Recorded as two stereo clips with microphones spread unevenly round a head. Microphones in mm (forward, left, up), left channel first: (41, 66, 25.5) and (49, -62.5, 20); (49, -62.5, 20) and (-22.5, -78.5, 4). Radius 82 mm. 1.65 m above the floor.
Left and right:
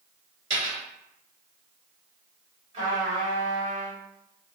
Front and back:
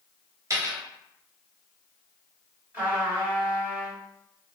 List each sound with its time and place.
0.5 s a dropped coin: 130° right, 1.7 m
2.7 s a trumpet: 95° right, 1.6 m